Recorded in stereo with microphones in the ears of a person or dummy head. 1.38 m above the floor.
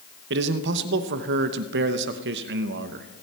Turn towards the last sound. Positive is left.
turn(degrees=-60)  # may be behind; listen again after turning